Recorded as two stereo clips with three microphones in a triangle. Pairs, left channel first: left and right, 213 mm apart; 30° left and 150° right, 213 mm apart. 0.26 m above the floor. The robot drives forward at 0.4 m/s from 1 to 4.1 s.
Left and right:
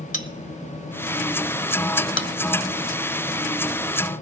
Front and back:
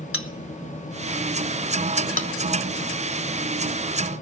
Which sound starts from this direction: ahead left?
A bell, at 0.1 s.